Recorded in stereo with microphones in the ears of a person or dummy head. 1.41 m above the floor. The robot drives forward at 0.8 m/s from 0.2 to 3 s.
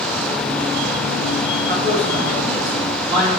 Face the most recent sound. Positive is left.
turn(degrees=-45)  # may be behind; listen again after turning